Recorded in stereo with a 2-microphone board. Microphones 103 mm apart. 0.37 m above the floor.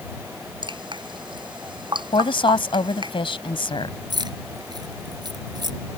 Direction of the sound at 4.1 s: 45° right (ahead or behind).